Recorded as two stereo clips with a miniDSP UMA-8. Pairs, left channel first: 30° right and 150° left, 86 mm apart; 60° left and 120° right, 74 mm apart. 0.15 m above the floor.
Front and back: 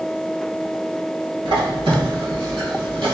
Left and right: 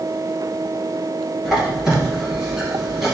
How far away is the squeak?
About 2 m.